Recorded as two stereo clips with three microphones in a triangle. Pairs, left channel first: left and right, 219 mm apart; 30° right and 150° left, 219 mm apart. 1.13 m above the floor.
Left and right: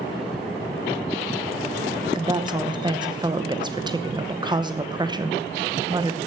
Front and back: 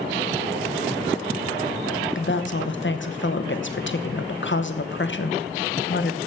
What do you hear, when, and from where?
2.1 s a woman speaking: 20° right, 1.0 m